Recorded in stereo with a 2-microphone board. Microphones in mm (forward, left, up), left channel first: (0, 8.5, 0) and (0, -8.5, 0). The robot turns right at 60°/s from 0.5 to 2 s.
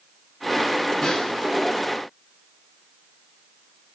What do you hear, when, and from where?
1.0 s a snare drum: 45° left (ahead or behind), 7 m; by 1.5 s 20° left (ahead or behind), 7 m